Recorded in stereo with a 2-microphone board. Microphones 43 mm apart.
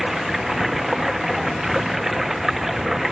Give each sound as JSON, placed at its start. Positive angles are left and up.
{"t": 0.0, "sound": "running water", "side_deg": -5}